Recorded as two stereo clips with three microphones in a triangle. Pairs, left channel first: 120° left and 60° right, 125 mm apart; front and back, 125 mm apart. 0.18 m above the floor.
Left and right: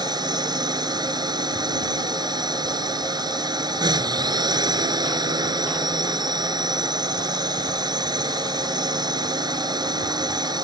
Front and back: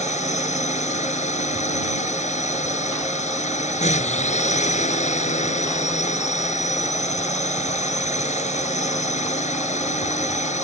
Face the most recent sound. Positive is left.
turn(degrees=-5)